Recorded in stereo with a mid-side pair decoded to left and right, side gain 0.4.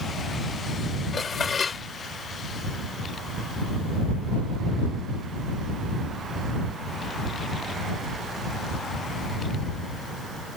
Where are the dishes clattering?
50° left.